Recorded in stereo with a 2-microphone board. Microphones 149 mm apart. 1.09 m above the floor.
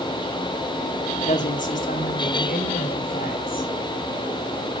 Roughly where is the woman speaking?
Left.